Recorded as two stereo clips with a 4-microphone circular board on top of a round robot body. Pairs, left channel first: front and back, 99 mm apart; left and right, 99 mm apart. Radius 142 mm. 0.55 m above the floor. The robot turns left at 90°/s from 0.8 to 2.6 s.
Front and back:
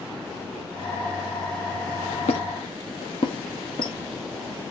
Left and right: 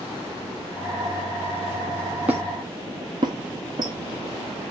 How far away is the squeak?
About 1.2 m.